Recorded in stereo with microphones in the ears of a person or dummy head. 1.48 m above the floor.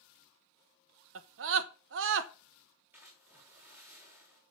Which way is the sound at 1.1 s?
70° right (ahead or behind).